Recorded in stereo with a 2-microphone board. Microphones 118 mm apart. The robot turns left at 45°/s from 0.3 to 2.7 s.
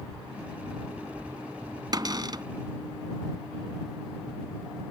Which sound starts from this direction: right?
A cupboard door, at 1.9 s.